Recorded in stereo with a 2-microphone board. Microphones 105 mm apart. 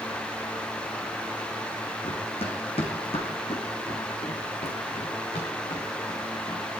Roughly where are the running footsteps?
Left.